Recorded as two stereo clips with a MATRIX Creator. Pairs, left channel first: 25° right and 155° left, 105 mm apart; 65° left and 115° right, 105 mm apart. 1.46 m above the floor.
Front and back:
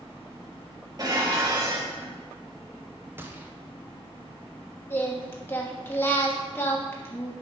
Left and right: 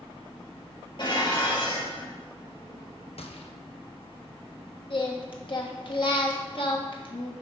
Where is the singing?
45° left, 1.2 m.